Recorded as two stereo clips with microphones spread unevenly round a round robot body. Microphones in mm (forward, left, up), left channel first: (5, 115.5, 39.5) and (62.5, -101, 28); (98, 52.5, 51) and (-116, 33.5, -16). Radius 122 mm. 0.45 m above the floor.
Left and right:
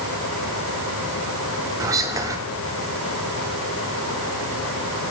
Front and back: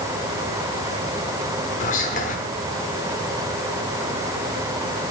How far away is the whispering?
About 1.0 m.